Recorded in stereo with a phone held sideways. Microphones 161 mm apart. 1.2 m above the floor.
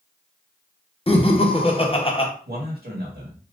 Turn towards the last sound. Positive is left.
turn(degrees=-80)